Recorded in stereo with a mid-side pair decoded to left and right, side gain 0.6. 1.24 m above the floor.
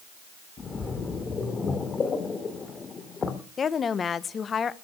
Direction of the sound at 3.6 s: 35° left.